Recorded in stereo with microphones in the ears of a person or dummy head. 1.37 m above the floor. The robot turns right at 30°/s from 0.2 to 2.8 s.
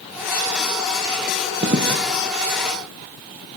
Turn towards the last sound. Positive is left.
turn(degrees=-70)  # may be behind; listen again after turning